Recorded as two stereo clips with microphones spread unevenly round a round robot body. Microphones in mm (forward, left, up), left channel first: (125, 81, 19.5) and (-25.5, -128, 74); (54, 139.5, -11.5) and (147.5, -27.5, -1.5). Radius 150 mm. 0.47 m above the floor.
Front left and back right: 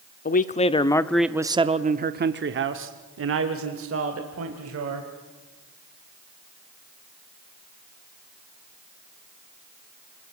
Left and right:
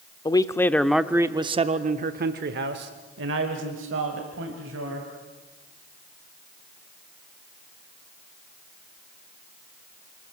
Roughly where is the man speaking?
Ahead left.